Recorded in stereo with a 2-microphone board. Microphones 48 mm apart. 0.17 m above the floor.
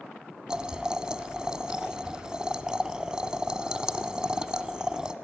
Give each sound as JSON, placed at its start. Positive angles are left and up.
{"t": 0.5, "sound": "boiling", "side_deg": -15, "distance_m": 0.7}